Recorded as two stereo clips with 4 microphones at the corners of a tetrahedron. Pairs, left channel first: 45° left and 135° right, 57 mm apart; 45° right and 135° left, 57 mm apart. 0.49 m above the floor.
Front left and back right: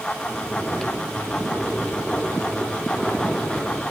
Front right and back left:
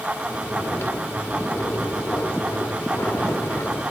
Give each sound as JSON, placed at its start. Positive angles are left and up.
{"t": 0.2, "sound": "snoring", "azimuth_deg": -30, "distance_m": 1.4}